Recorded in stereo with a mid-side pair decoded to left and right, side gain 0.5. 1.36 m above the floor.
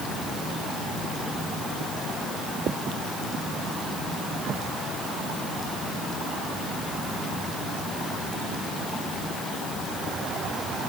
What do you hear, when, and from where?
Only background noise.